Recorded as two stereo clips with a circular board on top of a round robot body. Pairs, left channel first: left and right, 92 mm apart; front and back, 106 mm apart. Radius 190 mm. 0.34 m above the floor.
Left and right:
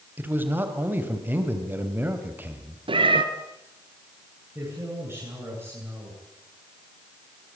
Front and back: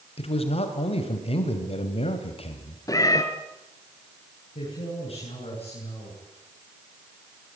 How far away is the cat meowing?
About 1.8 m.